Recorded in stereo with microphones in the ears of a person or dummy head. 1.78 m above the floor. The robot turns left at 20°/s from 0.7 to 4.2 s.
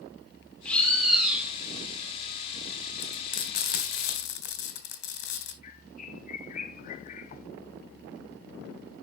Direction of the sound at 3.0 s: 40° left (ahead or behind).